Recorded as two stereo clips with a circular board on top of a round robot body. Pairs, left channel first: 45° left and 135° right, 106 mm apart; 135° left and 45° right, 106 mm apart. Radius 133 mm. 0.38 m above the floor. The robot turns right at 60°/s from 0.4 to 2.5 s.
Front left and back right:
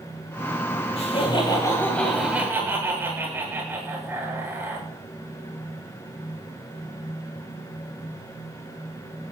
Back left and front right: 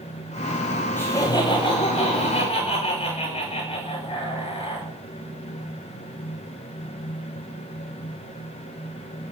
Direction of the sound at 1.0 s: 65° left.